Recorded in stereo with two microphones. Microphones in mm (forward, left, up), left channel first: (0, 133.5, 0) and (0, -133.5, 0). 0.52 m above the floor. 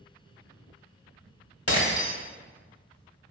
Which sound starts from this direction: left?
Breaking glass, at 1.7 s.